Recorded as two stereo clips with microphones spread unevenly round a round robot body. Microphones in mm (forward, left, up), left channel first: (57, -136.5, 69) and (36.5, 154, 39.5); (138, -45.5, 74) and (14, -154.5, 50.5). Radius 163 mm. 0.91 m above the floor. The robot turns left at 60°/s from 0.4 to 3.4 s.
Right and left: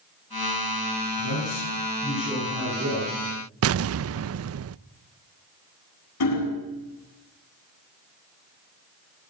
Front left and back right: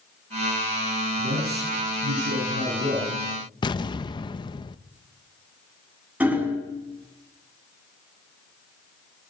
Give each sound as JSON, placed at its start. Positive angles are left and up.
{"t": 1.2, "sound": "a man speaking", "azimuth_deg": -100, "distance_m": 9.0}
{"t": 3.6, "sound": "an explosion", "azimuth_deg": 110, "distance_m": 0.6}
{"t": 6.2, "sound": "hammering", "azimuth_deg": -55, "distance_m": 8.5}